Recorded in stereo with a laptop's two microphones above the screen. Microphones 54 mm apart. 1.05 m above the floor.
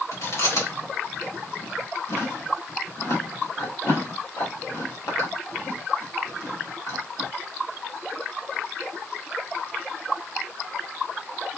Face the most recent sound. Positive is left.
turn(degrees=85)